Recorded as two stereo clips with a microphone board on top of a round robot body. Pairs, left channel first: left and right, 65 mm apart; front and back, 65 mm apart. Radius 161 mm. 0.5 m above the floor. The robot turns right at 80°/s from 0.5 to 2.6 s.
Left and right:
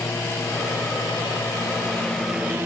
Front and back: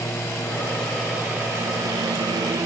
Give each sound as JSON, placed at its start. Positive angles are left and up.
{"t": 0.0, "sound": "a lawn mower", "azimuth_deg": 40}